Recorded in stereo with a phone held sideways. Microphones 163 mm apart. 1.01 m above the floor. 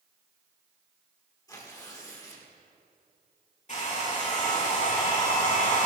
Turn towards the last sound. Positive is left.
turn(degrees=50)  # may be behind; listen again after turning